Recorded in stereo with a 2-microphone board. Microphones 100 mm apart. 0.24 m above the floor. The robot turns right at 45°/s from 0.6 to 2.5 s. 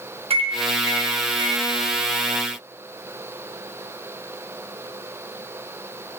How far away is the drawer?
No drawer in this recording.